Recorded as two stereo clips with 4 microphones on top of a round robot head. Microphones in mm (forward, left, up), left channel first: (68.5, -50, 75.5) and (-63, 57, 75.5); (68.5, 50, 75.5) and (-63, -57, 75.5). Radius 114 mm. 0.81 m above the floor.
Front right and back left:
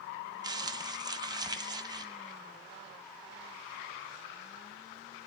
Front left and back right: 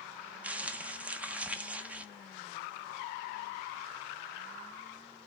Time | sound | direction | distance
0.4 | crumpling | 150° left | 0.6 m